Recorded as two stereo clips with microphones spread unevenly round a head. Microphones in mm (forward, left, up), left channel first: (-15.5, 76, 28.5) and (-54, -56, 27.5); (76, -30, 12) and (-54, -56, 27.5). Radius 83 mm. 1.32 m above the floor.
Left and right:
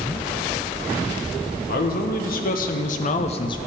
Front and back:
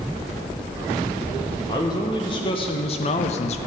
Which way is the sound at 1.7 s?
75° left.